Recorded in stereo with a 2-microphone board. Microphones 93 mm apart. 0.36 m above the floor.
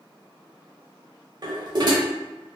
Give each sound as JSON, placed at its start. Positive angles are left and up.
{"t": 1.4, "sound": "dishes clattering", "side_deg": -50, "distance_m": 0.9}